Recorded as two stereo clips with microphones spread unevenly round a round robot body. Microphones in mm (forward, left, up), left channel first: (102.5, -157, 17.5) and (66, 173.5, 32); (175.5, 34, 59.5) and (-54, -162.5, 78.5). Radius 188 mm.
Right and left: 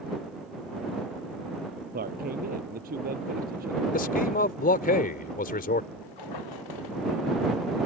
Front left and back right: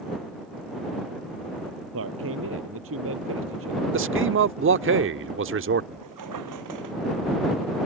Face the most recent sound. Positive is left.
turn(degrees=-120)